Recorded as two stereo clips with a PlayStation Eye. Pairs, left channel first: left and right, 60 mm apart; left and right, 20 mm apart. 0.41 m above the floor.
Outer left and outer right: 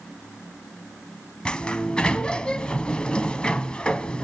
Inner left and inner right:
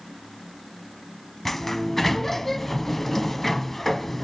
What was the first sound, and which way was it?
A sliding door, 15° left (ahead or behind).